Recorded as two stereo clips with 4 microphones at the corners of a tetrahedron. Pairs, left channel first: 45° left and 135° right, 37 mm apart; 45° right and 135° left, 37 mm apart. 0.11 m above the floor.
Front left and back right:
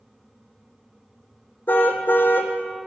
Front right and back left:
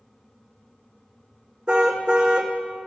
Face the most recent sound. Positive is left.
turn(degrees=70)